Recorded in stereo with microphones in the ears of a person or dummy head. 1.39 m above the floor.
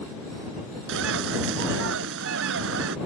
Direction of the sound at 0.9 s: 65° right (ahead or behind).